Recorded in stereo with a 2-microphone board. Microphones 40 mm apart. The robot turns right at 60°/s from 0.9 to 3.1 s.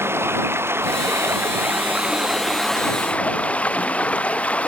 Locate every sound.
0.0 s running water: 100° right; by 4.7 s 35° left